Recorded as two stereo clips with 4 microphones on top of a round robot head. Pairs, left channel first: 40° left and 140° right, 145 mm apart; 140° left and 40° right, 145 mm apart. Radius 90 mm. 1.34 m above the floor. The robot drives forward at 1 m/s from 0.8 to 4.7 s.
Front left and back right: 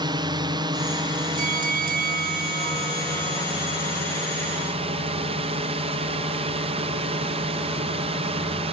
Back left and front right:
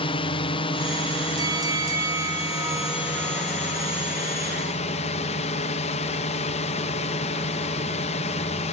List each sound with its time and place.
0.0 s a drone: 175° left
1.4 s a bell: 105° right; by 3.9 s 125° right